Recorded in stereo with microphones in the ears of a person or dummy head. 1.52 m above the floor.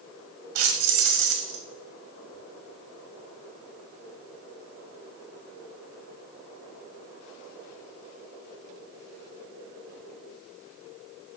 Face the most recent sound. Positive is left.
turn(degrees=-55)  # may be behind; listen again after turning